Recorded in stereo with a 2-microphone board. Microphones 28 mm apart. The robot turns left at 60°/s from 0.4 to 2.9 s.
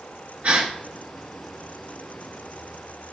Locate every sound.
0.4 s a gasp: 55° right (ahead or behind), 2 m; by 0.7 s 60° right (ahead or behind), 2 m